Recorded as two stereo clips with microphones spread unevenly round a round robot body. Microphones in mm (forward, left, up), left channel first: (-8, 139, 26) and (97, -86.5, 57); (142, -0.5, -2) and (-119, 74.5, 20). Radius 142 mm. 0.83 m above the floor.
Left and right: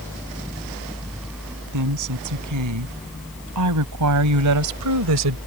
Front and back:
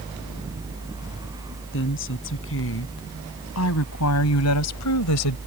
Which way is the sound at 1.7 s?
65° right.